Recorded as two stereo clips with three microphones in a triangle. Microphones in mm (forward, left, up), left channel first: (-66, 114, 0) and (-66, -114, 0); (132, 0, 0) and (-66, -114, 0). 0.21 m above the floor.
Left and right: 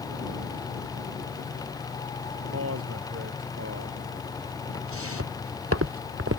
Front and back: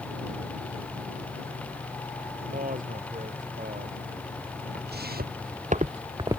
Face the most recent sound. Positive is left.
turn(degrees=-75)